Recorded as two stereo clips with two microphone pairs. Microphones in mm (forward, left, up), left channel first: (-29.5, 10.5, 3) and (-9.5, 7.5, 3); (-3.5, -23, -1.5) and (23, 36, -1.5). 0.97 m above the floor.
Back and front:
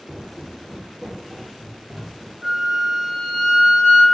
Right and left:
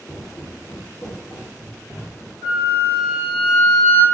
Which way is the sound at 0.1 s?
65° right.